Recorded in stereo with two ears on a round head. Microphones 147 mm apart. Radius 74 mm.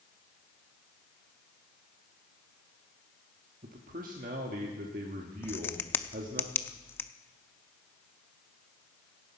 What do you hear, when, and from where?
3.6 s a man speaking: 50° right (ahead or behind), 1.4 m
5.4 s a crack: 15° left (ahead or behind), 0.5 m